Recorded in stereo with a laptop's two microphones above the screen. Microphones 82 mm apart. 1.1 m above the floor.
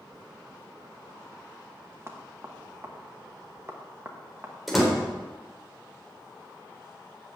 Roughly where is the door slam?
Centre.